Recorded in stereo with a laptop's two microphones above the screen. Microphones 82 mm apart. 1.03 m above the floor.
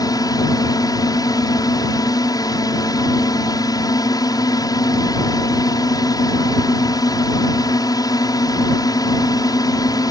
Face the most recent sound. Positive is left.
turn(degrees=50)  # may be behind; listen again after turning